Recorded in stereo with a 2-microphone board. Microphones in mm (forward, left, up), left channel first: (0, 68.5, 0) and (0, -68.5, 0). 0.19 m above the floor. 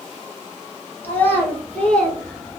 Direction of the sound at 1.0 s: 15° left (ahead or behind).